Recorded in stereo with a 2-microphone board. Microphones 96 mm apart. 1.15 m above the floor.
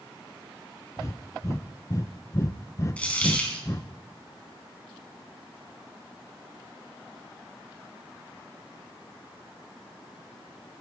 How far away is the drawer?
I don't hear a drawer.